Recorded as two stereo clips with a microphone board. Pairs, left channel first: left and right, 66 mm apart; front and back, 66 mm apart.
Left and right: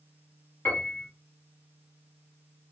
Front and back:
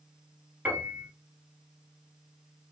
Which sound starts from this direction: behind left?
A piano, at 0.7 s.